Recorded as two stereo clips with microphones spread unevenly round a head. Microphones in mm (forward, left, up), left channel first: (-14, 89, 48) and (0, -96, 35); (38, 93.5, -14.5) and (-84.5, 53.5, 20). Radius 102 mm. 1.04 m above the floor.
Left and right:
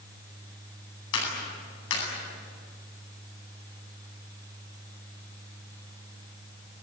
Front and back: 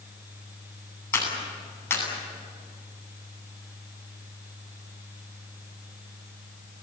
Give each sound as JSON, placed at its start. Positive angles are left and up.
{"t": 1.1, "sound": "a clap", "azimuth_deg": 90, "distance_m": 9.5}